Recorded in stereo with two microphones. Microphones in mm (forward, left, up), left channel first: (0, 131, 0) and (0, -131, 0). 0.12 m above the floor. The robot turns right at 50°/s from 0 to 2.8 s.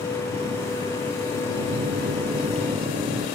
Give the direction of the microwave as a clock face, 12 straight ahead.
4 o'clock.